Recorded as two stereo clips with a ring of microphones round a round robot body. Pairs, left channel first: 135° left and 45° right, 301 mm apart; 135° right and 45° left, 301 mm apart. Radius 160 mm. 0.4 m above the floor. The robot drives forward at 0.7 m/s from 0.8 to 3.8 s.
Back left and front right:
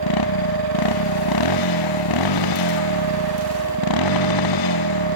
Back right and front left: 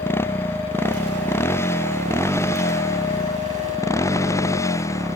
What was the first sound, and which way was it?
A motorcycle, 145° left.